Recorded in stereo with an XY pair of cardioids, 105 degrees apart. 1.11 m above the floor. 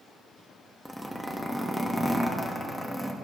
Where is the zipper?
Straight ahead, 1.5 m.